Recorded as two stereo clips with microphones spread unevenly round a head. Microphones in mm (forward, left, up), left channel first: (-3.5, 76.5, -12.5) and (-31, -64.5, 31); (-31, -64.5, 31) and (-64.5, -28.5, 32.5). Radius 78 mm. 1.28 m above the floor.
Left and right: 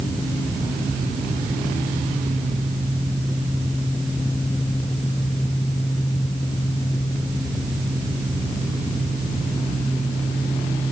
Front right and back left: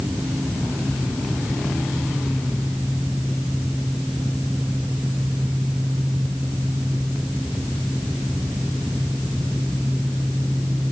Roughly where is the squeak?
No squeak in this recording.